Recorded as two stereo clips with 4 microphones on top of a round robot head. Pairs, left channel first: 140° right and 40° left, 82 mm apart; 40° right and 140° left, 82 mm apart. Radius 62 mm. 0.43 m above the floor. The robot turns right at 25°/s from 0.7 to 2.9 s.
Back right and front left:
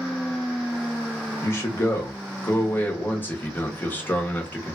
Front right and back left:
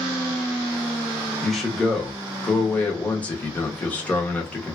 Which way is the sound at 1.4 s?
135° right.